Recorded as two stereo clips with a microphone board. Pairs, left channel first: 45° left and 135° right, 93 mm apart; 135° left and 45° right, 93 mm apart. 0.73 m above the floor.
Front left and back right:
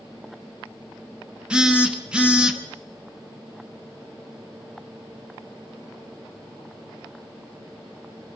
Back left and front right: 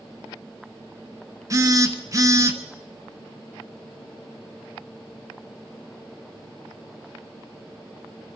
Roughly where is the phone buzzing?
Ahead right.